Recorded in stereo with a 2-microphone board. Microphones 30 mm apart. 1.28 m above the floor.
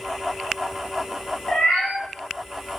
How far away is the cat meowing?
About 1.2 m.